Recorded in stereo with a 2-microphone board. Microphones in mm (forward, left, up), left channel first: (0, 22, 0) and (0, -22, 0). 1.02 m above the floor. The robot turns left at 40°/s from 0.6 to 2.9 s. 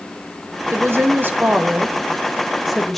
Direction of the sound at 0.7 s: 100° right.